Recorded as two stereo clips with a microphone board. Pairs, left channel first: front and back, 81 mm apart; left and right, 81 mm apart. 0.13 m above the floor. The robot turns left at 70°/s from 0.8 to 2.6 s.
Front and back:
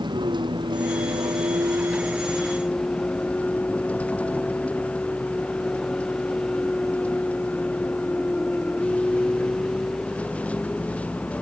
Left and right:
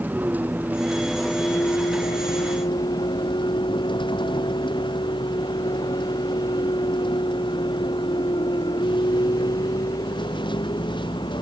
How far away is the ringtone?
I don't hear a ringtone.